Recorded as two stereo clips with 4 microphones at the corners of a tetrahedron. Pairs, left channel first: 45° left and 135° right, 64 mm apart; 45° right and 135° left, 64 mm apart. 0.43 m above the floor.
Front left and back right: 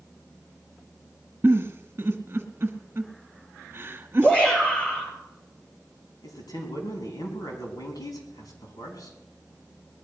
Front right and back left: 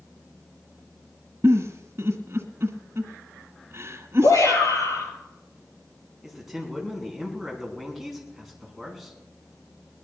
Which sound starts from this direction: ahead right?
A shout, at 4.2 s.